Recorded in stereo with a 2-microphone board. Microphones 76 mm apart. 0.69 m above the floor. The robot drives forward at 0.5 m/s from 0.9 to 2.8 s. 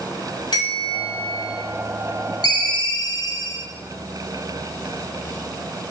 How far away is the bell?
About 2.0 m.